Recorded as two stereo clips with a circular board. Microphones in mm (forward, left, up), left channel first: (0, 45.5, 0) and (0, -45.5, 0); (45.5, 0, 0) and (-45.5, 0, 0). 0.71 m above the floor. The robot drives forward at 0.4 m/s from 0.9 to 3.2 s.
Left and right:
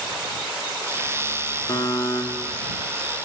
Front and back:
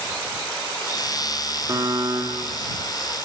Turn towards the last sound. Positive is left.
turn(degrees=155)